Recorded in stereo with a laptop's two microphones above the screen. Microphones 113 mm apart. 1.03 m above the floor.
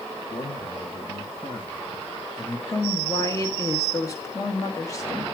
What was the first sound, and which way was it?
A man speaking, 65° left (ahead or behind).